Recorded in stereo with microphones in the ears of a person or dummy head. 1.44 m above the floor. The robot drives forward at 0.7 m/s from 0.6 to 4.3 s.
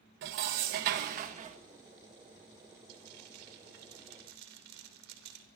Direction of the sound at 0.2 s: 50° right (ahead or behind).